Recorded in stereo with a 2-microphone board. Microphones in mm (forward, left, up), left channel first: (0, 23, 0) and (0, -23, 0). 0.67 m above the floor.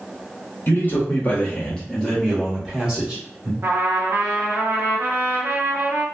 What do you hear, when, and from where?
0.7 s a man speaking: 45° left (ahead or behind), 1.0 m; by 3.5 s 20° right (ahead or behind), 1.4 m
3.6 s a trumpet: 60° right (ahead or behind), 0.8 m